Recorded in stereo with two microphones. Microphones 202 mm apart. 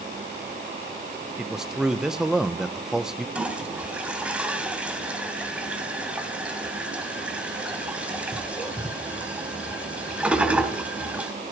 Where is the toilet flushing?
5° right (ahead or behind), 2.5 m.